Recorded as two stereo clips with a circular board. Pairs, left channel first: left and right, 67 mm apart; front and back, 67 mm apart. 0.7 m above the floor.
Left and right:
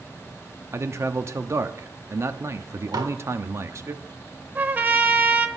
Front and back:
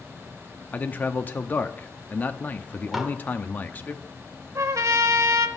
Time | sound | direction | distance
0.7 | a man speaking | 55° right | 0.7 m
2.9 | dishes clattering | 90° right | 1.4 m
4.5 | a trumpet | 150° right | 0.9 m